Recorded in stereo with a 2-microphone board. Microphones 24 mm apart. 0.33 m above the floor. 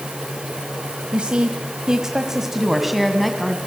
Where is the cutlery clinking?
No cutlery clinking in this recording.